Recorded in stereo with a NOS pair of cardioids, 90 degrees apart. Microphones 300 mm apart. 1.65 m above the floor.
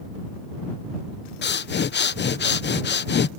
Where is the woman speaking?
No woman speaking in this recording.